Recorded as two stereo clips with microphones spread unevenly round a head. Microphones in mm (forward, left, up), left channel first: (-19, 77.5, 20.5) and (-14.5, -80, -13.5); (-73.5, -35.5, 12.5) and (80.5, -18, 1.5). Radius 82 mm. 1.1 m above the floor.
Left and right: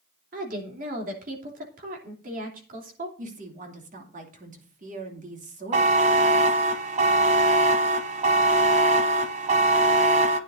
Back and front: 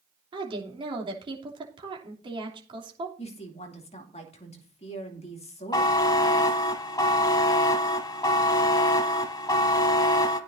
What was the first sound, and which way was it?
A woman speaking, 50° right.